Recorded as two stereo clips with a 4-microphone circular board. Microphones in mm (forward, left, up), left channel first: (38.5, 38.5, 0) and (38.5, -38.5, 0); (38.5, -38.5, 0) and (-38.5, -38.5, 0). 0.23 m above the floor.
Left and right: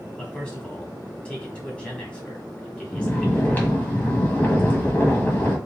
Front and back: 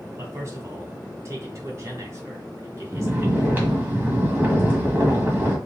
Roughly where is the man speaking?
Behind.